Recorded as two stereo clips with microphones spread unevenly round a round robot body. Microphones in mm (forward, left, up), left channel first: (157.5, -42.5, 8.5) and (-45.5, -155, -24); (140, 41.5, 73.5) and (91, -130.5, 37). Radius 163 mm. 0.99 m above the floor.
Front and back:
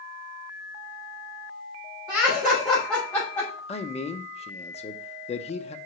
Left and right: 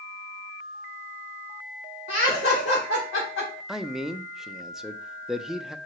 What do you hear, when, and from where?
2.1 s laughter: 130° left, 3.5 m; by 3.6 s 105° left, 3.5 m
3.7 s a man speaking: 35° right, 0.7 m